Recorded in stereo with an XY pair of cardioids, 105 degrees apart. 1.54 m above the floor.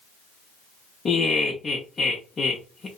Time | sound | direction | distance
1.1 | laughter | 40° left | 0.6 m